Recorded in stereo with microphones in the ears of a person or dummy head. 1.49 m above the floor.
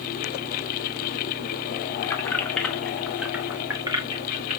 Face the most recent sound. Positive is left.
turn(degrees=-45)  # may be behind; listen again after turning